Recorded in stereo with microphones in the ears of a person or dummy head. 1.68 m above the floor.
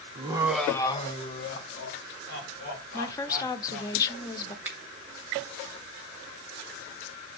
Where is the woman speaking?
20° left (ahead or behind), 0.6 m.